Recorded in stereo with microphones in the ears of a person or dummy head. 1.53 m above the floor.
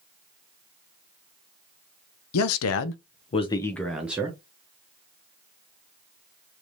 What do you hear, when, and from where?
2.3 s a man speaking: 80° left, 0.8 m; by 4.4 s 15° right (ahead or behind), 1.0 m